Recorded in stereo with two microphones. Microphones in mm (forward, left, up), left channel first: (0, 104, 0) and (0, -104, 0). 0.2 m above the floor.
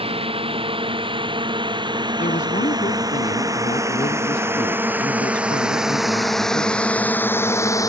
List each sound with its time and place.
0.0 s a drone: 25° right (ahead or behind); by 7.9 s 15° left (ahead or behind)
2.2 s a woman speaking: 40° left (ahead or behind)